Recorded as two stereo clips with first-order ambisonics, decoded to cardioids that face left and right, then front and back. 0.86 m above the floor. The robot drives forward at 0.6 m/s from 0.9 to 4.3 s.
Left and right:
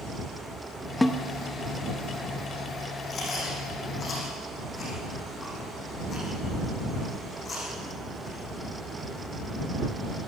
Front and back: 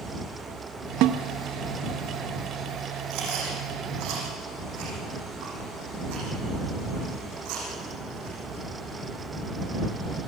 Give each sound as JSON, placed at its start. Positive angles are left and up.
{"t": 1.0, "sound": "a snare drum", "azimuth_deg": 170, "distance_m": 0.7}
{"t": 3.1, "sound": "chewing", "azimuth_deg": 155, "distance_m": 6.0}